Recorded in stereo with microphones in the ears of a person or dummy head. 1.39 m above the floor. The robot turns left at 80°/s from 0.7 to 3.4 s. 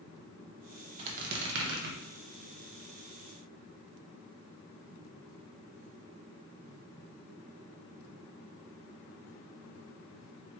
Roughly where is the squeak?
Ahead right.